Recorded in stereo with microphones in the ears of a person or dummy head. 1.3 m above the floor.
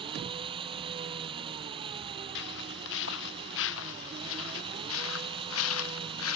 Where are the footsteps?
65° left (ahead or behind); by 6.4 s 80° left.